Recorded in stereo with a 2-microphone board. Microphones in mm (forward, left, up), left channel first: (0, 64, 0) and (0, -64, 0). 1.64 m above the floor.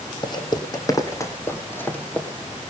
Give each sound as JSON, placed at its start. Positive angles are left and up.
{"t": 0.2, "sound": "footsteps", "side_deg": 35, "distance_m": 2.5}